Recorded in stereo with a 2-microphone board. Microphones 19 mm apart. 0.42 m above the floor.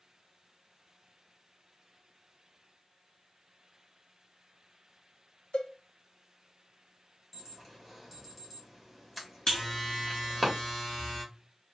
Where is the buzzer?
30° left (ahead or behind), 2 m.